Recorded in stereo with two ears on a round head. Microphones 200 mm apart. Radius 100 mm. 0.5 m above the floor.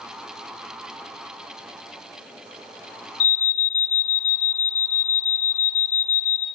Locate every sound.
3.2 s an alarm: 30° left (ahead or behind), 1.0 m